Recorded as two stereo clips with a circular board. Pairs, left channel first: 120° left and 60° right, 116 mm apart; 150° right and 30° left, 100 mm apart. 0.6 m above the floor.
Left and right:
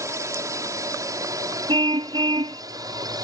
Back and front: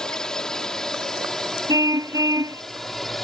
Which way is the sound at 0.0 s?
75° right.